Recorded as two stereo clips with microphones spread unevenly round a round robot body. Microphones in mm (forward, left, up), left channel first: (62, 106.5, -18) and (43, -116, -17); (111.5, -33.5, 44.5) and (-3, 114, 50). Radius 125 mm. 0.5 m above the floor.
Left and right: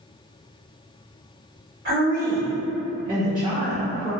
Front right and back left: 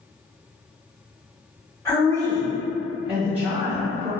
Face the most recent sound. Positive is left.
turn(degrees=-160)